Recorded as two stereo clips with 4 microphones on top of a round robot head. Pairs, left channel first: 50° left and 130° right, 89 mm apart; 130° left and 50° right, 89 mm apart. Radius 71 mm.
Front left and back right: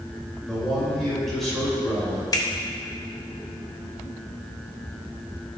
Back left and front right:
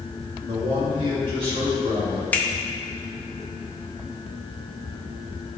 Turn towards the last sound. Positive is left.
turn(degrees=65)